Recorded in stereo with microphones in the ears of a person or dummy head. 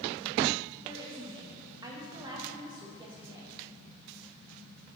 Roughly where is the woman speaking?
Right.